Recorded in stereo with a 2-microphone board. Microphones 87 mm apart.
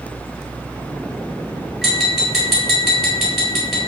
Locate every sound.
1.8 s tapping: centre (ahead or behind), 2 m